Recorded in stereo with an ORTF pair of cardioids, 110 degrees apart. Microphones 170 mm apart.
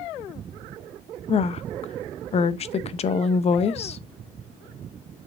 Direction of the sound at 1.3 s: 40° left.